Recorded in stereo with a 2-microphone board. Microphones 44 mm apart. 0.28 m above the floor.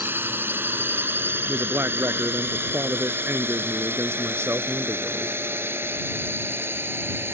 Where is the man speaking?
70° right (ahead or behind).